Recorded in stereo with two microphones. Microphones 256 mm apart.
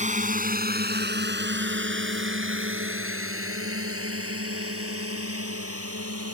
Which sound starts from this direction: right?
A drone, at 0.0 s.